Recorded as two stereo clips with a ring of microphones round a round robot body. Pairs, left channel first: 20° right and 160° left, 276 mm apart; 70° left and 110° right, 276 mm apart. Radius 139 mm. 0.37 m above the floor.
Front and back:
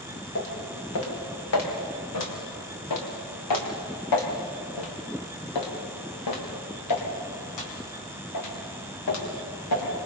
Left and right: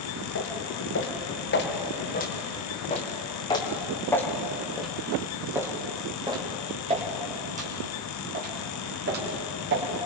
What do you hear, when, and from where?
0.3 s footsteps: 25° left, 5.5 m; by 9.9 s 60° right, 7 m